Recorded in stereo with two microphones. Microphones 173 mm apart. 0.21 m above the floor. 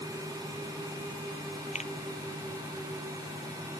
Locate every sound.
1.8 s a finger snap: 45° left (ahead or behind)